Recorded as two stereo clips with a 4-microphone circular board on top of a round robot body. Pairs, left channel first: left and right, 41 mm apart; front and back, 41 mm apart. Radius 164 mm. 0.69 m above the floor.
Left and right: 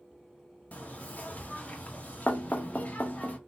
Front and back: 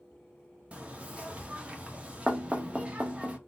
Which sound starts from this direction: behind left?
Knocking, at 0.7 s.